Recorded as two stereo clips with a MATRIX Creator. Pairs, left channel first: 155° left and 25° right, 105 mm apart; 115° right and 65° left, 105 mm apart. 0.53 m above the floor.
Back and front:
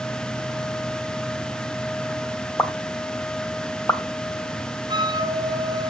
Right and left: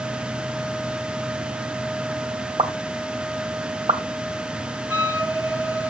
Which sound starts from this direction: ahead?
A flute, at 4.9 s.